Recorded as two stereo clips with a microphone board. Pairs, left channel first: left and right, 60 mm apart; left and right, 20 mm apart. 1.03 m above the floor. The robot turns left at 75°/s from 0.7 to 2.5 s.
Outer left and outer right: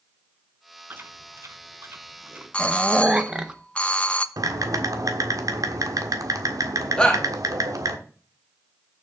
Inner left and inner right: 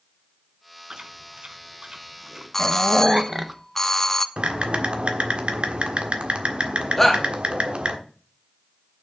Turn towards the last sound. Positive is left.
turn(degrees=15)  # may be behind; listen again after turning